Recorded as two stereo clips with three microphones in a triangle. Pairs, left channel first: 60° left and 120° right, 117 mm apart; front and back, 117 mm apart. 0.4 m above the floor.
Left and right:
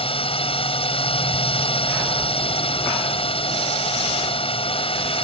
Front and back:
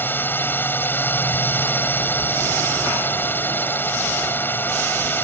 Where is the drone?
70° left.